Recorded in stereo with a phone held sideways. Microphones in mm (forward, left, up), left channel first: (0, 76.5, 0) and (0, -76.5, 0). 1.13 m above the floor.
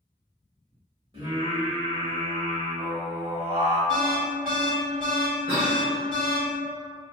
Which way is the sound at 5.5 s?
40° right (ahead or behind).